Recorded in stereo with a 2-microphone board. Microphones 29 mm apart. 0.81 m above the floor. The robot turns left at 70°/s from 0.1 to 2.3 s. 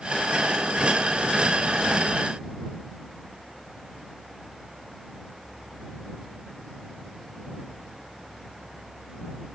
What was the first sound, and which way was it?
Only background noise.